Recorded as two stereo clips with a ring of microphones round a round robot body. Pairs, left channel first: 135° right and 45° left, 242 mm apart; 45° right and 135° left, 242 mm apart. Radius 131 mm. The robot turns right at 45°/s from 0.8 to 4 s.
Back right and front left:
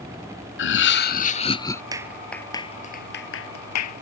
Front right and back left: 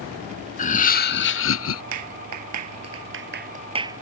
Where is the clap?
120° left; by 4.0 s 145° right.